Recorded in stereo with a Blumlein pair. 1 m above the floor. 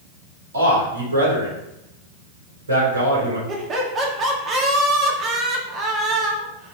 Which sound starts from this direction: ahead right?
Laughter, at 3.5 s.